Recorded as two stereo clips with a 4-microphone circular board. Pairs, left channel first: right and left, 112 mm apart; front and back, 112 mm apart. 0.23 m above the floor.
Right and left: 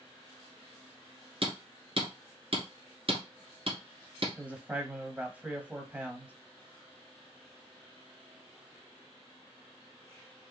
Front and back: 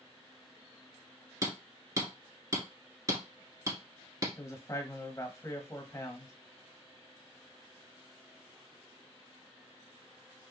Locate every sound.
1.4 s hammering: 120° left, 1.3 m
4.4 s a man speaking: 25° left, 1.1 m